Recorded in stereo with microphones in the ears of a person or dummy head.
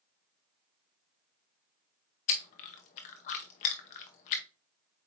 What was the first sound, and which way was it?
Chewing, 40° left (ahead or behind).